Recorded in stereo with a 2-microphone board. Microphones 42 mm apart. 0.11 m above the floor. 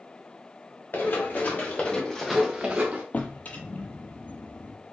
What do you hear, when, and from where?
0.9 s running footsteps: 55° left (ahead or behind), 1.9 m; by 3.0 s 45° right (ahead or behind), 1.1 m
3.1 s a drawer: 40° left (ahead or behind), 0.6 m